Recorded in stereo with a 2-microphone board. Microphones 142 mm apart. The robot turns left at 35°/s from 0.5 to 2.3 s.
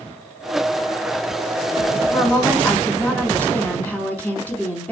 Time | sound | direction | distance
2.1 | a woman speaking | 15° left (ahead or behind) | 1.7 m